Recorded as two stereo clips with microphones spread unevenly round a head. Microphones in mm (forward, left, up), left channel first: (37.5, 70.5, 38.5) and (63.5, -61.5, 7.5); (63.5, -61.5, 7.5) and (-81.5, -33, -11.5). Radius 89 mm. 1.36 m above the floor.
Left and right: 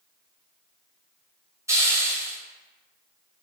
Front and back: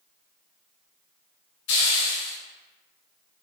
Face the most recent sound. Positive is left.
turn(degrees=-10)